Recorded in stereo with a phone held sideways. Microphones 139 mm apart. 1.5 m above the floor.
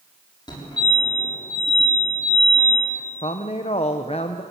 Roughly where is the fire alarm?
Left.